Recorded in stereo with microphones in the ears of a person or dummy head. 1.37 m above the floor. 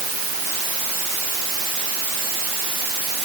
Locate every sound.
Only background noise.